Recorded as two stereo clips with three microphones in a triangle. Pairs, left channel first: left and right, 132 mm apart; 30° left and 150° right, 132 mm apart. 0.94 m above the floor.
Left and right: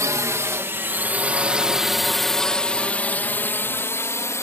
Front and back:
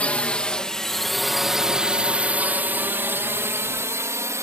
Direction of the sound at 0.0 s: 45° right.